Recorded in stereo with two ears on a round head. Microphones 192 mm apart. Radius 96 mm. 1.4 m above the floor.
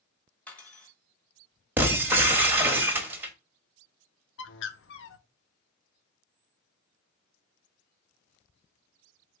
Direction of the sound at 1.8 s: 10° right (ahead or behind).